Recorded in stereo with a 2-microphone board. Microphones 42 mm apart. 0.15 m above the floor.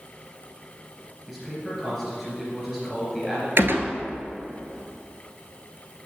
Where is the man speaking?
5° right (ahead or behind), 3 m.